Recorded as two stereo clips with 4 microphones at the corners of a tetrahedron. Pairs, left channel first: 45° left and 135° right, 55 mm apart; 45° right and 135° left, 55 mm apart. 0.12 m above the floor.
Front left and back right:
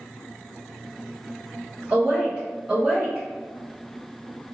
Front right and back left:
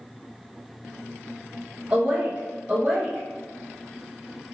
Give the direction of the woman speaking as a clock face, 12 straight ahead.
6 o'clock.